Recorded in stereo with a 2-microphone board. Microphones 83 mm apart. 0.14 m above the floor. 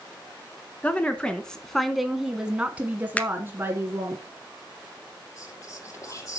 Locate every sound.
0.8 s a woman speaking: 15° left (ahead or behind), 1.3 m; by 4.2 s 30° right (ahead or behind), 1.6 m
3.2 s a finger snap: 15° left (ahead or behind), 1.0 m
5.4 s whispering: 40° left (ahead or behind), 5 m